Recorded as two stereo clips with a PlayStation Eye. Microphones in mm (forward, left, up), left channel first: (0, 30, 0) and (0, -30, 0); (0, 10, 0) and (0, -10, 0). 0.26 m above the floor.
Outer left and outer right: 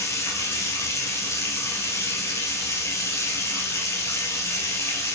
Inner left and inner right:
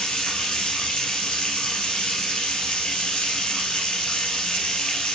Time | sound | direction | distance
0.0 | running water | 50° left (ahead or behind) | 2.5 m